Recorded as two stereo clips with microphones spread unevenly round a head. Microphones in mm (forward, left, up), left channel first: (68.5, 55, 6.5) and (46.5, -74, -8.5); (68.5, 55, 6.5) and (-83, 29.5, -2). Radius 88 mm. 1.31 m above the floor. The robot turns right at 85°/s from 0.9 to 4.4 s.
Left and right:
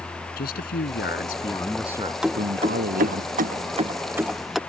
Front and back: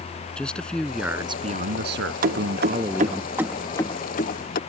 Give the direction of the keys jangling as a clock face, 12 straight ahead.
6 o'clock.